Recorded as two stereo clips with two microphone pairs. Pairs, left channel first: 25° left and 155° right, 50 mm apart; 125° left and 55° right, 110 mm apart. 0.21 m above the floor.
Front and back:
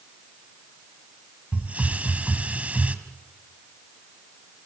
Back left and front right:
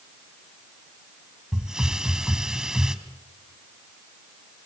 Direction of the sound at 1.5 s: 135° right.